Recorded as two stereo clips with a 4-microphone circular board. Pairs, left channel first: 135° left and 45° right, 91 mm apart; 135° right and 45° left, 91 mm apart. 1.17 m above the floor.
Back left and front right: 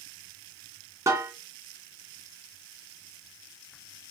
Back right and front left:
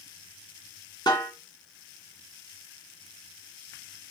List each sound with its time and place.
1.1 s a snare drum: 100° right, 2.5 m